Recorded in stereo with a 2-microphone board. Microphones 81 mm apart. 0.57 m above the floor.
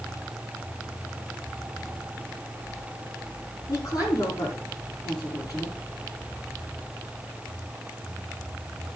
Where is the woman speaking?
50° left (ahead or behind), 7 m.